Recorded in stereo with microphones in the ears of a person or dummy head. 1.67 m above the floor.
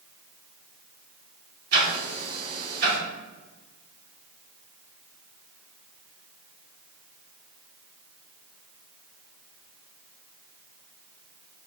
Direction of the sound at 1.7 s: 60° right (ahead or behind).